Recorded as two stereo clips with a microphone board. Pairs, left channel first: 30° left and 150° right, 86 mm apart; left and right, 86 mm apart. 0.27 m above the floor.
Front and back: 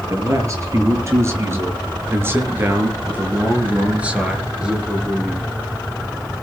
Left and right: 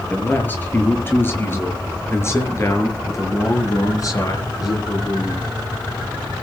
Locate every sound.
0.1 s a man speaking: 160° left, 6 m; by 5.5 s 125° left, 5 m